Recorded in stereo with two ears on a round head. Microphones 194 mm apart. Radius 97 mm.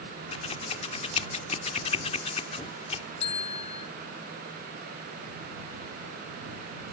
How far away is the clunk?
I don't hear a clunk.